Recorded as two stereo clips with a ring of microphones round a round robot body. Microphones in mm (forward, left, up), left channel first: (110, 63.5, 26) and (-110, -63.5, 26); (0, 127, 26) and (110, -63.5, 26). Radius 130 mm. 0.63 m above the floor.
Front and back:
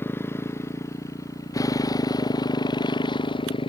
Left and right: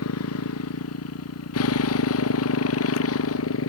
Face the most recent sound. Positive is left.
turn(degrees=100)